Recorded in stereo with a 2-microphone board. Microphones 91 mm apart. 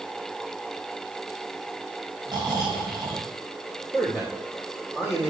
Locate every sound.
2.3 s snoring: 45° right (ahead or behind), 3 m
3.9 s a man speaking: 20° right (ahead or behind), 3 m